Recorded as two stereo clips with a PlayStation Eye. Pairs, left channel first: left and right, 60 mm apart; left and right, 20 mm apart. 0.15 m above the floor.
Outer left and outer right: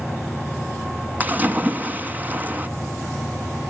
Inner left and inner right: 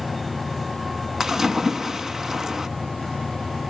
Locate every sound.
1.2 s a splash: 30° right (ahead or behind), 1.1 m